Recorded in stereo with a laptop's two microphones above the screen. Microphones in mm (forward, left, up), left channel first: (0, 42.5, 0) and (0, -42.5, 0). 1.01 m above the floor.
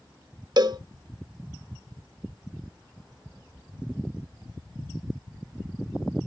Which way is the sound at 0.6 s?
55° right (ahead or behind).